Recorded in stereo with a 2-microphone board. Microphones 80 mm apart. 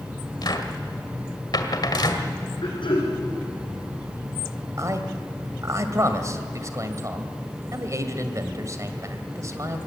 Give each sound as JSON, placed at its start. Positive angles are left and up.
{"t": 0.4, "sound": "a cupboard door", "side_deg": 60, "distance_m": 1.8}
{"t": 2.6, "sound": "throat clearing", "side_deg": 90, "distance_m": 6.0}
{"t": 4.8, "sound": "a man speaking", "side_deg": -40, "distance_m": 2.0}